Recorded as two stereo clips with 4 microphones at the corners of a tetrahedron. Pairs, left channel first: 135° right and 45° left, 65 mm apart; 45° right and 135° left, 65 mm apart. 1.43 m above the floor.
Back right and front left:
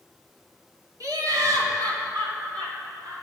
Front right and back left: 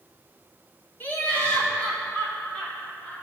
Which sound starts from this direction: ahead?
Laughter, at 1.0 s.